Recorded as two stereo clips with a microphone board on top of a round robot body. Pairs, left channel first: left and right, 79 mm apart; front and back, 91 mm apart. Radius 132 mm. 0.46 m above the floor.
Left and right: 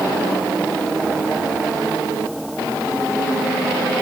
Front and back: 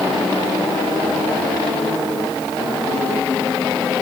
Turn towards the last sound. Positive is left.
No sound to turn to.